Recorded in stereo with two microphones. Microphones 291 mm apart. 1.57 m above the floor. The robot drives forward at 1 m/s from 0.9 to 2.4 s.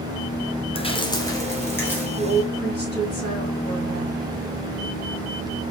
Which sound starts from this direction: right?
A woman speaking, at 2.2 s.